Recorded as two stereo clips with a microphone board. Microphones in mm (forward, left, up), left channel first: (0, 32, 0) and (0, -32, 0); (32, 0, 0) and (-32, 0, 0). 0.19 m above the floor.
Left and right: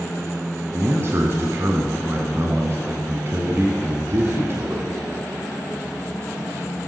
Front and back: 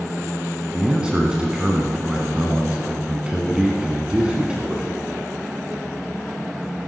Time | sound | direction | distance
0.7 | a man speaking | 110° right | 1.6 m